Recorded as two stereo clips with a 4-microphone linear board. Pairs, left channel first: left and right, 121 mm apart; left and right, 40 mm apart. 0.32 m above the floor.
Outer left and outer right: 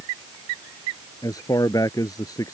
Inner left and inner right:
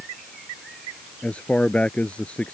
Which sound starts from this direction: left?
A man speaking, at 1.2 s.